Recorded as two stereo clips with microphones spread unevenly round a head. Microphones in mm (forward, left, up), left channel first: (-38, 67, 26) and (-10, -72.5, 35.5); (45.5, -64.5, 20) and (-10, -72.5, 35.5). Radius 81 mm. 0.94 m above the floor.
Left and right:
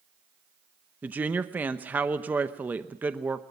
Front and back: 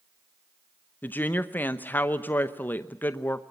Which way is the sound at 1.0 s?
Straight ahead.